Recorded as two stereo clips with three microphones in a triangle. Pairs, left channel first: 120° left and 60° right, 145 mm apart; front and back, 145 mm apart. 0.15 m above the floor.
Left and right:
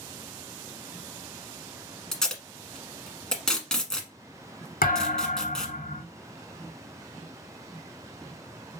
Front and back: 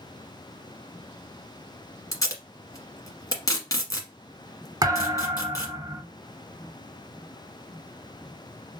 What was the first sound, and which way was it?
Tape being pulled, 35° left.